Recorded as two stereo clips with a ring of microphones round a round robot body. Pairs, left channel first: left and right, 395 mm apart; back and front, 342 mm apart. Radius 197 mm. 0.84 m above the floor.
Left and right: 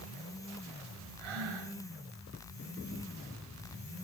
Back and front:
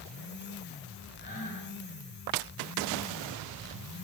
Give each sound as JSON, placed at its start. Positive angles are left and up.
{"t": 1.2, "sound": "breathing", "azimuth_deg": -110, "distance_m": 3.5}